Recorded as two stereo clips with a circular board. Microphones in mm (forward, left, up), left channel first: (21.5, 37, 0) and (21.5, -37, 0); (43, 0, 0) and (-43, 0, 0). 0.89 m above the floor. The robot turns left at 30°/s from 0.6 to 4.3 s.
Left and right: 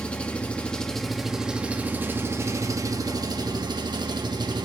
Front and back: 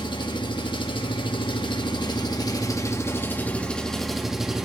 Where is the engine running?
15° left, 1.0 m; by 4.7 s 95° right, 1.0 m.